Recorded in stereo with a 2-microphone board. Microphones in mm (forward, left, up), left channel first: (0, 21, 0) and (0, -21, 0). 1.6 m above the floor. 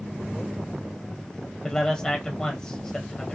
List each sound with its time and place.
1.6 s a man speaking: 20° left (ahead or behind), 1.0 m